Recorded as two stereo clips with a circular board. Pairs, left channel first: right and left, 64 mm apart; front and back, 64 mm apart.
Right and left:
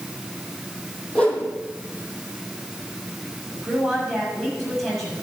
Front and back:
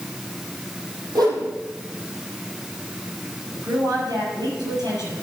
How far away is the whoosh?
About 3.5 m.